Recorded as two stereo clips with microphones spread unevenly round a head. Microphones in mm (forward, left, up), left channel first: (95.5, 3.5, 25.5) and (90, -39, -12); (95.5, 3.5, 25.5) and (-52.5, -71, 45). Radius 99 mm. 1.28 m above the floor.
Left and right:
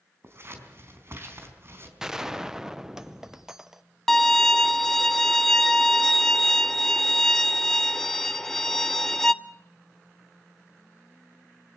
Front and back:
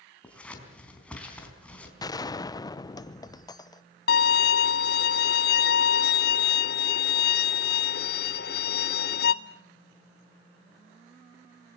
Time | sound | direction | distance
0.2 | scissors | 60° right | 4 m
2.0 | a gunshot | 40° right | 1.0 m
4.1 | a violin | 60° left | 0.5 m